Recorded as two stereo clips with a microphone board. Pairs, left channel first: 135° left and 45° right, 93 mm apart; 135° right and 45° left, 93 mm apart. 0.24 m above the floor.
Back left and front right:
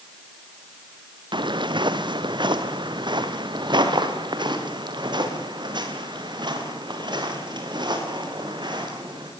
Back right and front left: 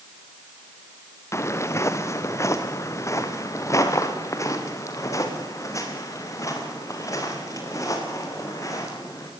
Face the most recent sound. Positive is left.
turn(degrees=-80)